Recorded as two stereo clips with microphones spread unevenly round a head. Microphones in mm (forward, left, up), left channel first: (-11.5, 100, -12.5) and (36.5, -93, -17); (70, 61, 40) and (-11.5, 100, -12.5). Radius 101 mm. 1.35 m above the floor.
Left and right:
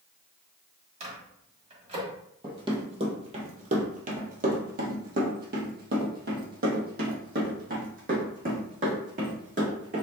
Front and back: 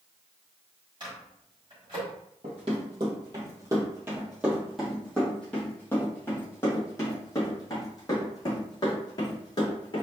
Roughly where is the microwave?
Behind right.